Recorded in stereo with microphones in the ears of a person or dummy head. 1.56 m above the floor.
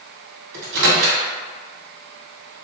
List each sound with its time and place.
0.5 s a microwave: 60° right (ahead or behind), 1.2 m